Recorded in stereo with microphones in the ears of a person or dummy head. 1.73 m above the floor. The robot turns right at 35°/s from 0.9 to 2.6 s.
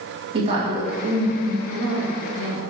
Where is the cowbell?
No cowbell in this recording.